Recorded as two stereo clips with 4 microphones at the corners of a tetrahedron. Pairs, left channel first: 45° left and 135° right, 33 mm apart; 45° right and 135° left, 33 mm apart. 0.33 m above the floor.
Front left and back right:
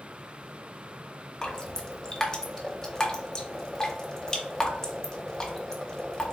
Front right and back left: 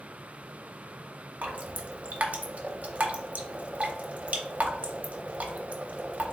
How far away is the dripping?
About 0.6 m.